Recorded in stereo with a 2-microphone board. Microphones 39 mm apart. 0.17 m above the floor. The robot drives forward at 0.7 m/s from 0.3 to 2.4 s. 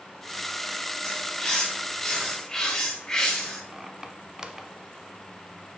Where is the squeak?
15° right (ahead or behind), 0.8 m.